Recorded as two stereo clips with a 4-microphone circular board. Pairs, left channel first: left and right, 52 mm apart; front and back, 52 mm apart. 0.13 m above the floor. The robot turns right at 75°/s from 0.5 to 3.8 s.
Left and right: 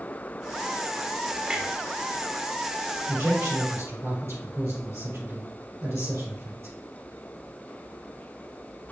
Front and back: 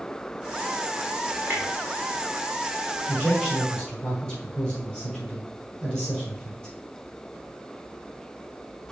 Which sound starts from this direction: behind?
A clunk, at 1.5 s.